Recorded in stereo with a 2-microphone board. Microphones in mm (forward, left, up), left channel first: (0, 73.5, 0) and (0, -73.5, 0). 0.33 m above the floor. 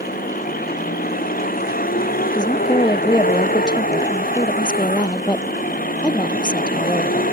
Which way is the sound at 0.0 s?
80° left.